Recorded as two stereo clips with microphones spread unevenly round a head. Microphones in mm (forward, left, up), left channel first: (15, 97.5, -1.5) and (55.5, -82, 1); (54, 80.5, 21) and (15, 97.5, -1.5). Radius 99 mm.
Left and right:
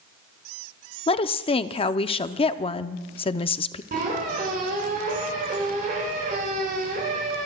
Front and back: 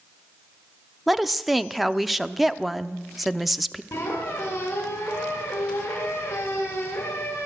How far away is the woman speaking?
About 0.5 m.